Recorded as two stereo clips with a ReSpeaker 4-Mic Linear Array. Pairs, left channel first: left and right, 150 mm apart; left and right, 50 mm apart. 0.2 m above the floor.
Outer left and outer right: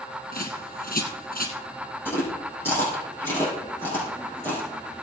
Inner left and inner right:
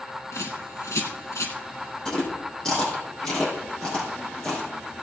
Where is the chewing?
15° left (ahead or behind), 5 m.